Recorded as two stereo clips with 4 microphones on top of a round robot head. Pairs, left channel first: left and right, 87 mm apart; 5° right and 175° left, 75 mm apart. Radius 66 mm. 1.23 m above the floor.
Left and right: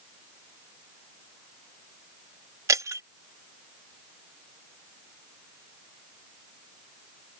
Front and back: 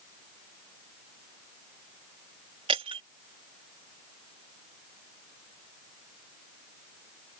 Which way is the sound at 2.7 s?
140° right.